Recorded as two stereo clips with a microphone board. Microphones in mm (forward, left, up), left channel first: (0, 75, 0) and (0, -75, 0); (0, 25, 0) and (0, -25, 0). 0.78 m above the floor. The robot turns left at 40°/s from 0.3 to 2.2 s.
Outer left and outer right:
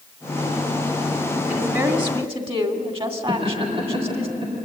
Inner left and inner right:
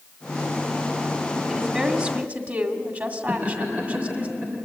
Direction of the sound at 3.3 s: 35° right (ahead or behind).